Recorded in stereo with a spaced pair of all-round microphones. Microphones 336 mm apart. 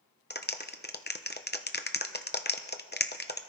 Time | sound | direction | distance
0.3 | a clap | 30° left (ahead or behind) | 0.9 m